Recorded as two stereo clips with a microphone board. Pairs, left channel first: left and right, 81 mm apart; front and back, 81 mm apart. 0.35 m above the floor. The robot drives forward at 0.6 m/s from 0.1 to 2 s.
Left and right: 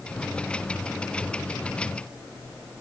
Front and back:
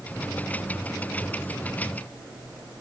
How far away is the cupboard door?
I don't hear a cupboard door.